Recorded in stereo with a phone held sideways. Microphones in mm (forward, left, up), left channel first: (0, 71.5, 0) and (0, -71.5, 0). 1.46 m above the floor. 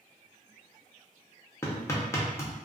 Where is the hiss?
I don't hear a hiss.